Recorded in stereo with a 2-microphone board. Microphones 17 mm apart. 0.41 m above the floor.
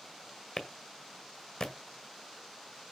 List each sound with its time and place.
0.6 s a clap: 55° left (ahead or behind), 1.6 m